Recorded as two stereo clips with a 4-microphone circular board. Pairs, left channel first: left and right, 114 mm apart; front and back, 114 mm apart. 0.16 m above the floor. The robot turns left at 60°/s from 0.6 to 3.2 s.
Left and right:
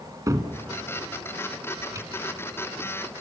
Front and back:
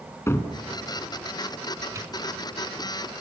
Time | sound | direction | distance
0.3 | a cupboard door | 50° right | 1.4 m